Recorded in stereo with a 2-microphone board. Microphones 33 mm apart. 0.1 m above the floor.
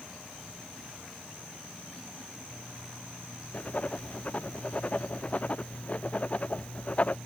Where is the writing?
40° left (ahead or behind).